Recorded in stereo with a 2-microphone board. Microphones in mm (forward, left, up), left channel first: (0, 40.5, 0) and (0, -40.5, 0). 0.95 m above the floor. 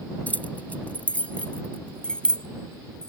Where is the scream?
I don't hear a scream.